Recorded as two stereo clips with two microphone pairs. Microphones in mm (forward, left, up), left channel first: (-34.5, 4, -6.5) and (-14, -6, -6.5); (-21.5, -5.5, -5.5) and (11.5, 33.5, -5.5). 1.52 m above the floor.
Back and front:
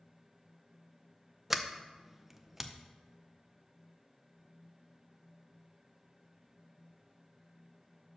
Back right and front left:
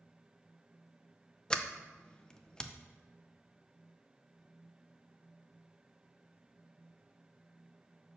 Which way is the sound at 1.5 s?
85° right.